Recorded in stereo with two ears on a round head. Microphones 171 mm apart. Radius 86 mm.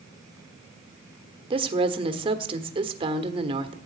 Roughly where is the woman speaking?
Right.